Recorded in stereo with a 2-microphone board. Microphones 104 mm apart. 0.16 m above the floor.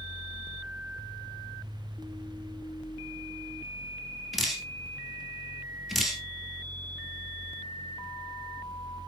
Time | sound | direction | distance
4.3 | dripping | centre (ahead or behind) | 2 m